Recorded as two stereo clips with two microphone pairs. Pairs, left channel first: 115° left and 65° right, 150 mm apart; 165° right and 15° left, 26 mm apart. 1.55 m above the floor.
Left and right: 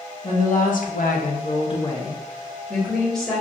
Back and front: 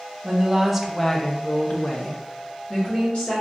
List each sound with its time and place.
0.2 s a woman speaking: 85° left, 1.0 m; by 3.4 s 150° right, 1.9 m